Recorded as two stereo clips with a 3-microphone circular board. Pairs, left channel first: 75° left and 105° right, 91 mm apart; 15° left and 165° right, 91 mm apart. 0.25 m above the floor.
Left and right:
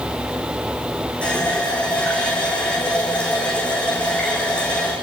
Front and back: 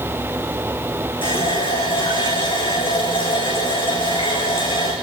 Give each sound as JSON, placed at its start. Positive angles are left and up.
{"t": 1.2, "sound": "a running tap", "azimuth_deg": -5, "distance_m": 9.5}